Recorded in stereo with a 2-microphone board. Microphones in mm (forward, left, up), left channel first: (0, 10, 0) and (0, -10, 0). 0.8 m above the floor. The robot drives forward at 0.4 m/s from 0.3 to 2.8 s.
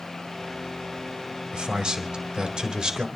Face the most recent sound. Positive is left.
turn(degrees=-45)  # may be behind; listen again after turning